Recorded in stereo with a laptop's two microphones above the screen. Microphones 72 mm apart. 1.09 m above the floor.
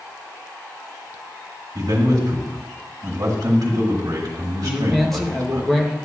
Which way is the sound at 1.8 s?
65° right (ahead or behind).